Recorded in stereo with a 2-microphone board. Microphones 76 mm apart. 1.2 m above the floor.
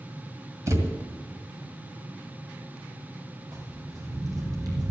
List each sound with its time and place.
0.7 s a thud: 45° right (ahead or behind), 2.0 m
3.5 s footsteps: 50° right (ahead or behind), 3 m